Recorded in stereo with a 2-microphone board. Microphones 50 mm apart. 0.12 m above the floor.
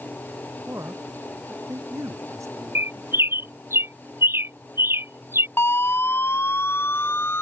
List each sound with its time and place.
0.7 s a man speaking: 80° right
2.8 s a bird: 50° right (ahead or behind)
5.6 s a siren: 50° left (ahead or behind)